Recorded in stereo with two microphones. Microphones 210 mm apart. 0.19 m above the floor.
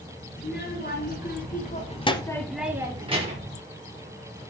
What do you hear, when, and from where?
0.4 s a child speaking: 55° left (ahead or behind), 2 m; by 3.6 s 40° right (ahead or behind), 1.2 m